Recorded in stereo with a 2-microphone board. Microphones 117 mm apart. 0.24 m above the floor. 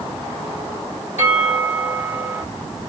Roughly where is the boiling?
I don't hear boiling.